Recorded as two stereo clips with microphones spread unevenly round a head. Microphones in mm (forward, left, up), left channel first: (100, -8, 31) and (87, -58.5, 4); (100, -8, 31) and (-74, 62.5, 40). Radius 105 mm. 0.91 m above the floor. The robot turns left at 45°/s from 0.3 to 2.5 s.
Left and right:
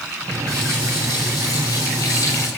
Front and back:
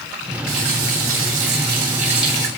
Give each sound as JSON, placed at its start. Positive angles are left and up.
{"t": 0.5, "sound": "a running tap", "azimuth_deg": 175, "distance_m": 5.5}